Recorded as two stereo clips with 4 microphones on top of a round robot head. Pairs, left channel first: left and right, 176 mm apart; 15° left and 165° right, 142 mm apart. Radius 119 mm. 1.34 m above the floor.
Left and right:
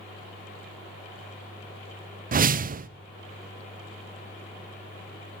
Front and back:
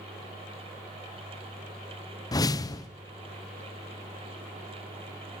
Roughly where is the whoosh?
Ahead right.